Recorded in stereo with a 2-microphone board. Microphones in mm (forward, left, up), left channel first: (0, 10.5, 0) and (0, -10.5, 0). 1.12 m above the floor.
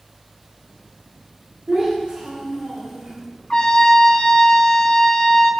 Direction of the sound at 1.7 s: 80° right.